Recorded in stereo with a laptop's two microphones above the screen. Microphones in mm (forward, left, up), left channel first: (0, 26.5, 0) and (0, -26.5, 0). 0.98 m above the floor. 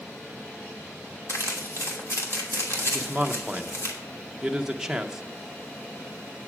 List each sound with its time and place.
1.3 s crumpling: 60° left (ahead or behind), 2.5 m
2.9 s a man speaking: 10° right (ahead or behind), 0.7 m